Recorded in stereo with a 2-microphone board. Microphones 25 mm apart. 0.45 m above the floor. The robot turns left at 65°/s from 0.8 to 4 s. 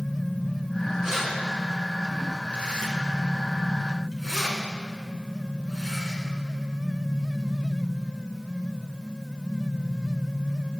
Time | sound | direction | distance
1.0 | keys jangling | 35° right (ahead or behind) | 3.5 m